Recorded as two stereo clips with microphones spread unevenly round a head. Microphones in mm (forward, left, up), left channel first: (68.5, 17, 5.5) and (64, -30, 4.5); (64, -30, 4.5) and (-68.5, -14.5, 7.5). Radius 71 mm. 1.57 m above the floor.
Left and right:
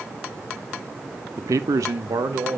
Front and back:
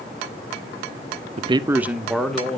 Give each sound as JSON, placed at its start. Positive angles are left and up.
{"t": 1.4, "sound": "a man speaking", "azimuth_deg": -145, "distance_m": 0.5}